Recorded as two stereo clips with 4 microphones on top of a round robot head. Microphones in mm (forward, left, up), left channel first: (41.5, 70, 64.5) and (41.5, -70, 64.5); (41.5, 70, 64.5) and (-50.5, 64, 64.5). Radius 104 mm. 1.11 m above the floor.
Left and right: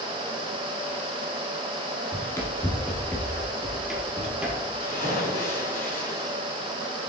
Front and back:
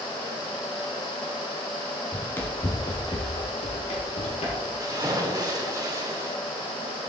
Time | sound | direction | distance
2.1 | running footsteps | 60° left | 1.1 m
4.8 | a splash | 135° left | 2.0 m